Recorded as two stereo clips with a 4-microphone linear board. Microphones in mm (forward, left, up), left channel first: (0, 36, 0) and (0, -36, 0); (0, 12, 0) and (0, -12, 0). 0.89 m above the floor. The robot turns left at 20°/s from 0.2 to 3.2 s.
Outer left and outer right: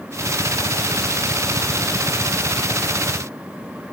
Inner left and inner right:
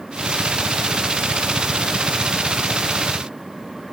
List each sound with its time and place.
Only background noise.